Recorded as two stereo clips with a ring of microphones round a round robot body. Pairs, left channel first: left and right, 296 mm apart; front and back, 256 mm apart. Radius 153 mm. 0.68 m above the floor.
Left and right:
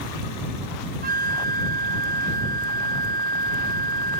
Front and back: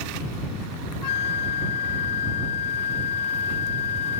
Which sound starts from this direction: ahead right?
A flute, at 1.0 s.